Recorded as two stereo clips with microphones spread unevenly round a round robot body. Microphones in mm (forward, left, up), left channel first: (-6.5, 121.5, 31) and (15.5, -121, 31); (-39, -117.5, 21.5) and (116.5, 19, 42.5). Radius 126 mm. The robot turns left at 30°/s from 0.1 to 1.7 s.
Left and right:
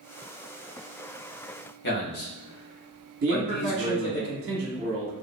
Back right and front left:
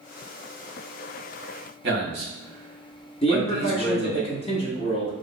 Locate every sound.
1.8 s a man speaking: 65° left, 1.1 m
3.2 s a man speaking: 100° right, 1.0 m